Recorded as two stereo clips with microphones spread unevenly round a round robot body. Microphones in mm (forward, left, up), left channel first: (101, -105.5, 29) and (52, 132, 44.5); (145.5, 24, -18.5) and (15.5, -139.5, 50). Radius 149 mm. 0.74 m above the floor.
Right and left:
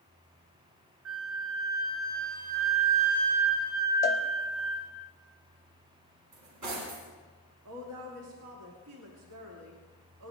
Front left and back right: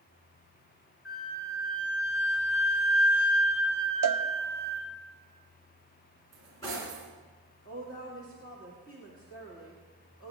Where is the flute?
75° left, 2.5 m.